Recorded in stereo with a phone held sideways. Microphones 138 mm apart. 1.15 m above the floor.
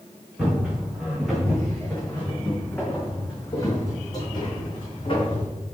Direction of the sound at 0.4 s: 5° right (ahead or behind).